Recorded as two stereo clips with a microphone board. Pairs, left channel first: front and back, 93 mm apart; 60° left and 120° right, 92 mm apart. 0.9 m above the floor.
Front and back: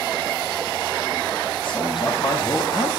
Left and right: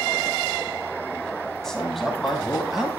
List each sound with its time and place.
1.6 s a man speaking: 25° right, 6 m; by 2.9 s 35° right, 5.5 m